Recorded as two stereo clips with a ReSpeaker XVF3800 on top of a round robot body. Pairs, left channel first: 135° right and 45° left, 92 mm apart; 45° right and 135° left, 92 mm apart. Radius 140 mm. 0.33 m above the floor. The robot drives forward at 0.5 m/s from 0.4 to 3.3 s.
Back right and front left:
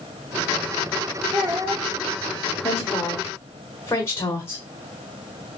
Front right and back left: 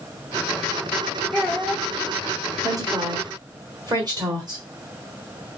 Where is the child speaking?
35° left, 1.4 m; by 1.9 s 45° left, 1.3 m.